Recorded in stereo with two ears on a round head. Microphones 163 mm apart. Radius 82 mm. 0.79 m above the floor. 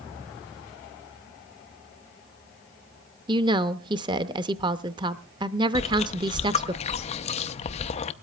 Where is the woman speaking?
25° right (ahead or behind), 0.6 m.